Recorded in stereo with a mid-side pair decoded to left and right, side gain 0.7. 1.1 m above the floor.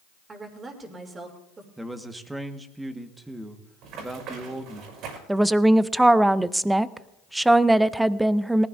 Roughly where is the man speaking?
Ahead.